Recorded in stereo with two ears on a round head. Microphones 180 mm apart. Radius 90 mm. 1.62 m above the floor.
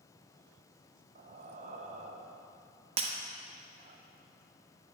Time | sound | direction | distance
1.1 | breathing | 35° right (ahead or behind) | 0.7 m
3.0 | breaking glass | 30° right (ahead or behind) | 0.9 m